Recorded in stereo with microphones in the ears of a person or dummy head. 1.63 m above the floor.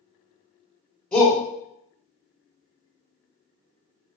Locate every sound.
1.1 s a shout: 5° left (ahead or behind), 1.1 m